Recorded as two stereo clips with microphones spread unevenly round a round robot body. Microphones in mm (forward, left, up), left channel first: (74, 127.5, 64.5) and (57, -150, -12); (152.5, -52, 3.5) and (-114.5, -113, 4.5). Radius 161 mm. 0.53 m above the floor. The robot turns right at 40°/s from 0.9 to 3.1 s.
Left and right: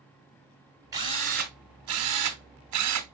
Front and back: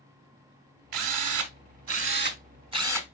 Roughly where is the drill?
Behind.